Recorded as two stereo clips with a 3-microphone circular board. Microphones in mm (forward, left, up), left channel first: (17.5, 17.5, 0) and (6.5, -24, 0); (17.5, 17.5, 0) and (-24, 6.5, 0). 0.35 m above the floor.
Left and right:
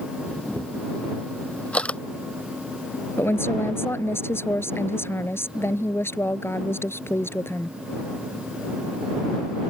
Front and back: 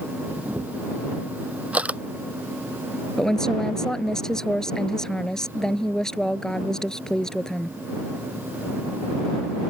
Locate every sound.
0.3 s a camera shutter: 135° left
3.2 s a woman speaking: 90° left